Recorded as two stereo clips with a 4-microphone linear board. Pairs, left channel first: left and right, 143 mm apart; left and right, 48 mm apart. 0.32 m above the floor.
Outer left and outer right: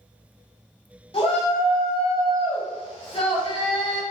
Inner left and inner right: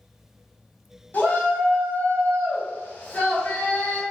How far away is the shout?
About 1.6 m.